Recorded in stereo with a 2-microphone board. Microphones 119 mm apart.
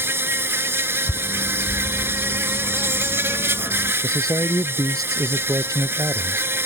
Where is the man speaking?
30° right (ahead or behind).